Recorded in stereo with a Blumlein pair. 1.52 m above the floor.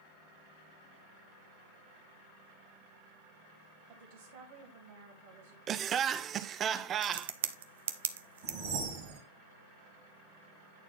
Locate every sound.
3.9 s a woman speaking: 55° right, 2.5 m
5.7 s laughter: 25° right, 0.6 m
7.0 s a crack: 60° right, 0.7 m
8.4 s a whoosh: 50° right, 2.5 m